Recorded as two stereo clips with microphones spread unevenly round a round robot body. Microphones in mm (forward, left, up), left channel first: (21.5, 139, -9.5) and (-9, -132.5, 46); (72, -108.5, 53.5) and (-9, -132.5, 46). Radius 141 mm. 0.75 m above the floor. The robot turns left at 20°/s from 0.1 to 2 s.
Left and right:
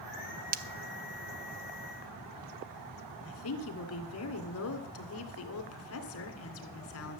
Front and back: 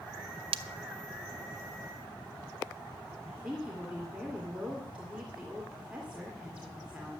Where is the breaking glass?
160° right, 0.6 m.